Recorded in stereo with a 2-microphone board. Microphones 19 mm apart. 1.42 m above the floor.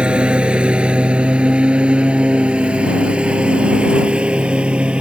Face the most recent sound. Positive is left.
turn(degrees=-75)  # may be behind; listen again after turning